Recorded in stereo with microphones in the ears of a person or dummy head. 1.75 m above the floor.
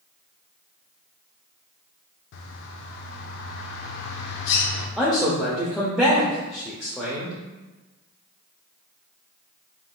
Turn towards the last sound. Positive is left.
turn(degrees=5)  # may be behind; listen again after turning